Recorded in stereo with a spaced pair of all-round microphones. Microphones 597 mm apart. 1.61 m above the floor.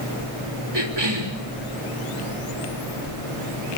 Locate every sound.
0.7 s a cough: 45° right (ahead or behind), 3.5 m